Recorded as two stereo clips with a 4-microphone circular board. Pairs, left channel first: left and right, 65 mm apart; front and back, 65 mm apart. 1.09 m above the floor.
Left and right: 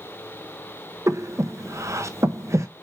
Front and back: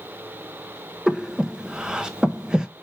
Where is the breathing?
105° right, 0.7 m.